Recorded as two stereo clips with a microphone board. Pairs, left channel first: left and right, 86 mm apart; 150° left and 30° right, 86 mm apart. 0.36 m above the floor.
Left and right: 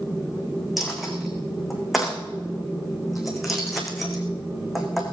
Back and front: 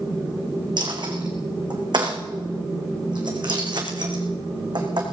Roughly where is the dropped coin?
Ahead.